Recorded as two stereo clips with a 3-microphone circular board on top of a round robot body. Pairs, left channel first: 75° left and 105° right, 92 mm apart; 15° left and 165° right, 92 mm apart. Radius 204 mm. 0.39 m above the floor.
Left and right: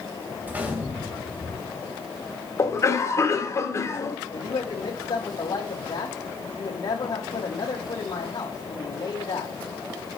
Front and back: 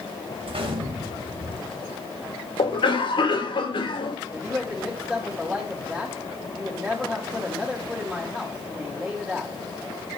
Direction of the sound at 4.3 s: 115° left.